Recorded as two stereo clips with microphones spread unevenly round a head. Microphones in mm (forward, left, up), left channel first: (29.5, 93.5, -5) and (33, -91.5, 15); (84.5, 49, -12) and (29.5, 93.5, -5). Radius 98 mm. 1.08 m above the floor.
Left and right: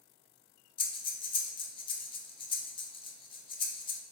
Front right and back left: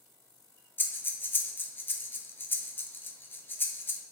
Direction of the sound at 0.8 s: 25° left.